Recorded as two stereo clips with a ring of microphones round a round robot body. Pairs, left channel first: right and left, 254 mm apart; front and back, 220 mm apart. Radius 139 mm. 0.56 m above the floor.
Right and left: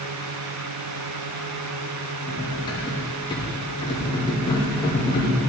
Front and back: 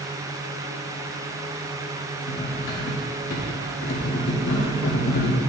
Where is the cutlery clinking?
20° right, 1.0 m.